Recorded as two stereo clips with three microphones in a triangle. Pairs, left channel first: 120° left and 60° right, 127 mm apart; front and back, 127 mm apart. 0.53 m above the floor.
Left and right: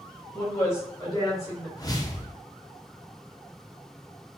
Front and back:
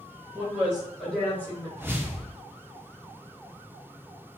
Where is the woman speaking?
155° left, 1.1 m; by 1.7 s 65° left, 1.4 m.